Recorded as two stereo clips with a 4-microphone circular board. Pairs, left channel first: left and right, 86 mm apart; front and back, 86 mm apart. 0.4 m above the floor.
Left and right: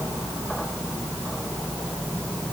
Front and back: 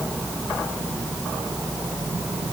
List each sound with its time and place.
Only background noise.